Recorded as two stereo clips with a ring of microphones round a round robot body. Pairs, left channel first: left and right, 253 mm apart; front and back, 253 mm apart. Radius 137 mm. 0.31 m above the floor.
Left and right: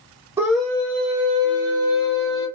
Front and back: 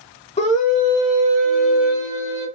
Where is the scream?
25° right, 1.0 m; by 2.5 s 60° left, 2 m.